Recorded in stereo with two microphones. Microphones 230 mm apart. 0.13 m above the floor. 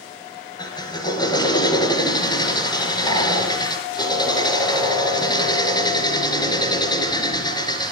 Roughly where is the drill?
Centre.